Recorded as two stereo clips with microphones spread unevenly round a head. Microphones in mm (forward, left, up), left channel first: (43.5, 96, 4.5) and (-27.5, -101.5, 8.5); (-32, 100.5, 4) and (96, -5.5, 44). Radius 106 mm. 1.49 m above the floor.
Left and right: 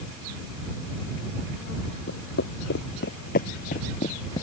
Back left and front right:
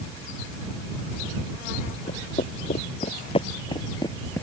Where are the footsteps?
90° left; by 4.4 s 45° left.